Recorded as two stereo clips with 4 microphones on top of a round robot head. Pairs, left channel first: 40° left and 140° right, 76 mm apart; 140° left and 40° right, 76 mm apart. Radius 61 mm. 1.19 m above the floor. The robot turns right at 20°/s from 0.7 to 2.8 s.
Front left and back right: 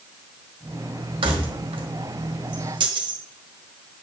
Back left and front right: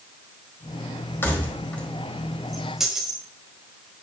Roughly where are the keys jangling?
Behind right.